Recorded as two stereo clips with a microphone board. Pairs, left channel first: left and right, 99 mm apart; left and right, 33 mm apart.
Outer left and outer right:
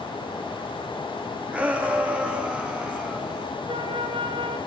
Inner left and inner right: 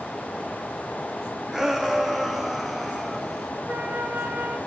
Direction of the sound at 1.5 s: 10° right (ahead or behind).